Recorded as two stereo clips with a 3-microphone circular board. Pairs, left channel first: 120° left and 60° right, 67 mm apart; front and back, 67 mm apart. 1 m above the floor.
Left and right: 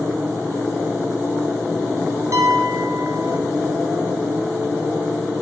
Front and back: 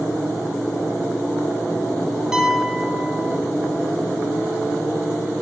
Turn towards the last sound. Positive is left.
turn(degrees=-100)